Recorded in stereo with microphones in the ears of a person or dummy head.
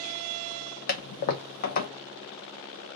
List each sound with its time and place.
0.9 s a toilet flushing: 50° left (ahead or behind), 0.6 m